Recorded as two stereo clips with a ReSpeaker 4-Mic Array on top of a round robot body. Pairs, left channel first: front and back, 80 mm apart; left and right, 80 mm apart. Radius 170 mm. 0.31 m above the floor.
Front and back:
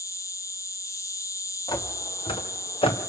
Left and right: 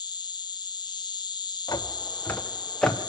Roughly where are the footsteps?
Ahead left.